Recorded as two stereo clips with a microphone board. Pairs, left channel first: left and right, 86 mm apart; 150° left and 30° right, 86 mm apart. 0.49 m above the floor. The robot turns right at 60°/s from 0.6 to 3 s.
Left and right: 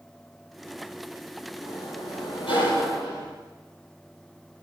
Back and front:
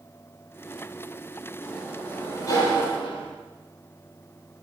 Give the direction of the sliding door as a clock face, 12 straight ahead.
10 o'clock.